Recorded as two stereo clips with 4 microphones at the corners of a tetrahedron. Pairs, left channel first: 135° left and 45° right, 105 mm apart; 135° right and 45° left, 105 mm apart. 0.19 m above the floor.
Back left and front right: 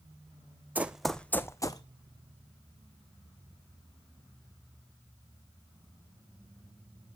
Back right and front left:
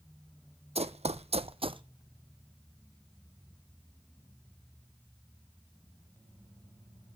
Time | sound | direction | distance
0.8 | running footsteps | 30° left | 0.6 m